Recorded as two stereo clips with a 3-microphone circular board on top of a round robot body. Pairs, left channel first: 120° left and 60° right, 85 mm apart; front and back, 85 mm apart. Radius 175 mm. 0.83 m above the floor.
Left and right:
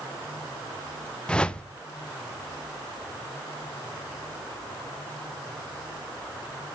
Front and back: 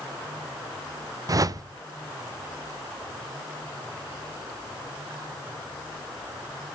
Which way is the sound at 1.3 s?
165° right.